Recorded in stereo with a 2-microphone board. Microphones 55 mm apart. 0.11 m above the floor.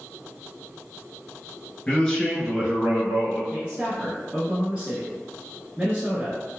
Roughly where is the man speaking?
Centre.